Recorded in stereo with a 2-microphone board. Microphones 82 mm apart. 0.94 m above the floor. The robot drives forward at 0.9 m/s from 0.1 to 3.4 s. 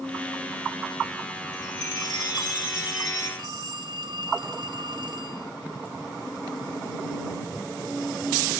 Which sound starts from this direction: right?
A phone ringing, at 3.4 s.